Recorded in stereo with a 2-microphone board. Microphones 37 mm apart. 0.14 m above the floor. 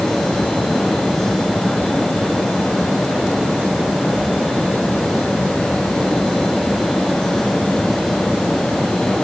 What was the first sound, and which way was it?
Only background noise.